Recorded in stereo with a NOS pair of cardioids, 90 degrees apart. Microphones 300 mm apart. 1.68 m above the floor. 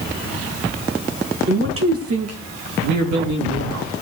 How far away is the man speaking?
About 2.5 m.